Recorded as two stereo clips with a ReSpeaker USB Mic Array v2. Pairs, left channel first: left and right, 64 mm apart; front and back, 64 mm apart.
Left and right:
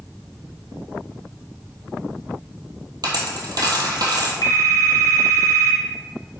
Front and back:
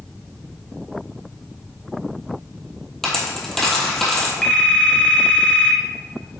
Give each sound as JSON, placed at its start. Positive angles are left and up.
{"t": 3.0, "sound": "a dropped coin", "azimuth_deg": -85, "distance_m": 1.7}
{"t": 4.4, "sound": "a phone ringing", "azimuth_deg": 70, "distance_m": 1.5}